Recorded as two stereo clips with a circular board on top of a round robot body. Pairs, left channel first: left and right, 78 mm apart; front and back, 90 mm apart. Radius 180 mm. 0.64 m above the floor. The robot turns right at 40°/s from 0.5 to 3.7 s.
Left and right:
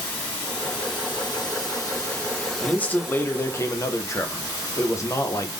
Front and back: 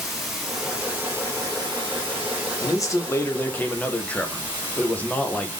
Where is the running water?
95° left, 0.9 m; by 5.6 s 140° right, 0.9 m.